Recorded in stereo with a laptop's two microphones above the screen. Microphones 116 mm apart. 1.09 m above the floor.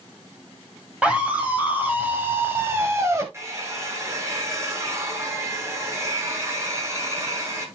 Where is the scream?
10° right (ahead or behind), 6 m; by 3.2 s 25° right (ahead or behind), 5.5 m.